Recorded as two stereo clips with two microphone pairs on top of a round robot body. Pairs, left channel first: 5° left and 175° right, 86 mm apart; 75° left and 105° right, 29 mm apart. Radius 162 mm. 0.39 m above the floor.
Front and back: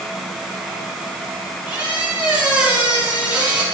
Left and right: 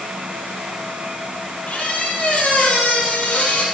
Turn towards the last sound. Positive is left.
turn(degrees=110)